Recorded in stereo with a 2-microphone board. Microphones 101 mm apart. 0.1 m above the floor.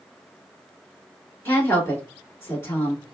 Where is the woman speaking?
20° left (ahead or behind), 1.7 m.